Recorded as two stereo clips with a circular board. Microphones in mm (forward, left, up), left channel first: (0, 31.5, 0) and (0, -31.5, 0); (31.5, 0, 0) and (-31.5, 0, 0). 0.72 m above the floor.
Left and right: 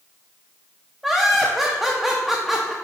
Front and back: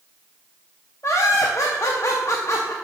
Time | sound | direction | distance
1.0 | laughter | 5° right | 0.7 m